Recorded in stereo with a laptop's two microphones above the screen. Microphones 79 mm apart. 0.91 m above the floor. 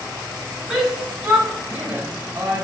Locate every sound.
0.7 s a shout: 10° right (ahead or behind), 4.5 m; by 2.6 s 30° right (ahead or behind), 4 m